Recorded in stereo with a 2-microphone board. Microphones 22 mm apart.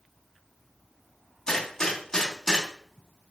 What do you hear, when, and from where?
1.5 s a gunshot: 30° left (ahead or behind), 3.5 m